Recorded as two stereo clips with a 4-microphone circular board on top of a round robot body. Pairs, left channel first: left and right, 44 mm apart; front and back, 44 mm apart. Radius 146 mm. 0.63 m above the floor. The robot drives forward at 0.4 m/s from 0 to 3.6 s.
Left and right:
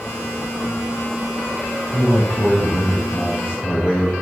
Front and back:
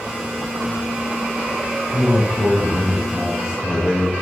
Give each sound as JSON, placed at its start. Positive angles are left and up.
{"t": 1.9, "sound": "a man speaking", "azimuth_deg": 100, "distance_m": 3.0}